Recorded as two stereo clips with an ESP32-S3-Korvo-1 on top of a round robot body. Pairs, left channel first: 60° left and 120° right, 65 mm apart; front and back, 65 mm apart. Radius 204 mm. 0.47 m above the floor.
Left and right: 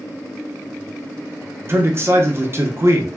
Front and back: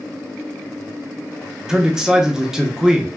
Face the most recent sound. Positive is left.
turn(degrees=-105)